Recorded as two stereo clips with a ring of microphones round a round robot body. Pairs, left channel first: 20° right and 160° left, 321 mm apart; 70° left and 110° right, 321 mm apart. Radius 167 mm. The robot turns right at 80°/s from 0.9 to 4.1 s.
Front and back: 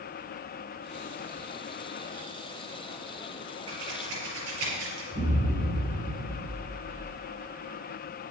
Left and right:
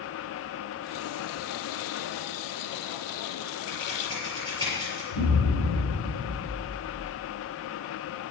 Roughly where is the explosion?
Left.